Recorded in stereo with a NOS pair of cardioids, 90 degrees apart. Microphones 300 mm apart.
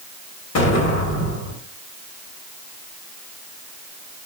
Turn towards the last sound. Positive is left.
turn(degrees=65)